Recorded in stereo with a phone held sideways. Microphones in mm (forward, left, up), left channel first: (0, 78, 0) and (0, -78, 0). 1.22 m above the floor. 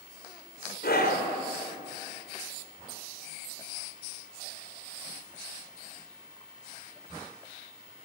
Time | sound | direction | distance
0.8 | a scream | 80° left | 3.5 m